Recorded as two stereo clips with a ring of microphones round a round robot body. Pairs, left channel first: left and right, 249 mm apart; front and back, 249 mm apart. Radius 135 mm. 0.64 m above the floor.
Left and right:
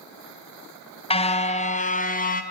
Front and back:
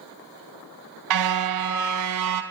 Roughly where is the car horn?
Behind left.